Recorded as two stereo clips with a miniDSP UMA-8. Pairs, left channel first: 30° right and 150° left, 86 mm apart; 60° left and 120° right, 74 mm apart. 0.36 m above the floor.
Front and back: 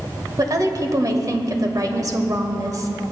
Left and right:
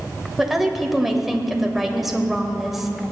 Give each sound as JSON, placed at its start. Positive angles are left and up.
{"t": 0.4, "sound": "a woman speaking", "azimuth_deg": 155, "distance_m": 1.2}